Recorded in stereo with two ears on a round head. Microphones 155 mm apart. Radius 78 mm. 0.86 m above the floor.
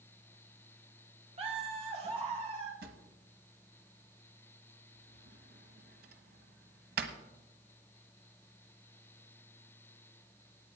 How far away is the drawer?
About 1.2 m.